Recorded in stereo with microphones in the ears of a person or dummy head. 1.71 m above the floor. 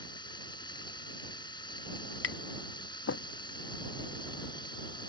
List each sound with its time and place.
0.0 s running water: 25° left (ahead or behind)
2.2 s tapping: 70° left (ahead or behind)